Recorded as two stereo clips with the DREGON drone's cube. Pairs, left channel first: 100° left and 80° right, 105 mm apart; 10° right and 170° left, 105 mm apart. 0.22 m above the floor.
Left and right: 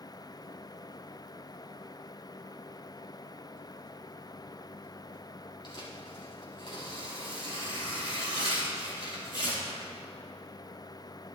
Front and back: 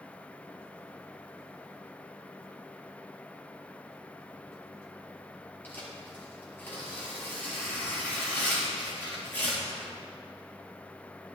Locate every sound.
5.6 s tearing paper: 60° left, 4.5 m